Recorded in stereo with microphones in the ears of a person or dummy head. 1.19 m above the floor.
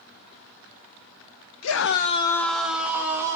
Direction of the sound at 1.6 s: 80° left.